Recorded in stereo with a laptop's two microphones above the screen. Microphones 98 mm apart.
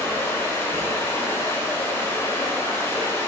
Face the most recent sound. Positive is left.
turn(degrees=25)  # may be behind; listen again after turning